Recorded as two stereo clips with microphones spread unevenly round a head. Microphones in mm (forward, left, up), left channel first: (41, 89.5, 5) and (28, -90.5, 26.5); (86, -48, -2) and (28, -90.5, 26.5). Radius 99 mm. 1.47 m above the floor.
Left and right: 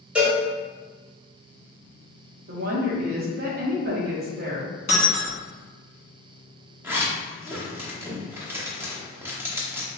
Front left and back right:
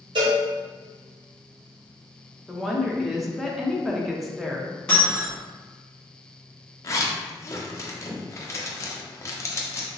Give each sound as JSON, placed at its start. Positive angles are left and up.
{"t": 0.1, "sound": "a cowbell", "azimuth_deg": 180, "distance_m": 0.7}
{"t": 2.5, "sound": "a woman speaking", "azimuth_deg": -55, "distance_m": 0.9}
{"t": 4.9, "sound": "breaking glass", "azimuth_deg": 135, "distance_m": 1.0}
{"t": 6.8, "sound": "a zipper", "azimuth_deg": -25, "distance_m": 0.7}